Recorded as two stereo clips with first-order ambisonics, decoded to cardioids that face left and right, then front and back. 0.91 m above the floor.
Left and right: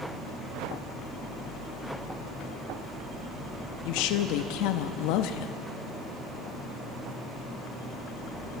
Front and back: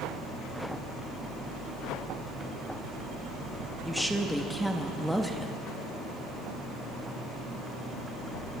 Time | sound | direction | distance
3.9 | a woman speaking | 90° left | 0.9 m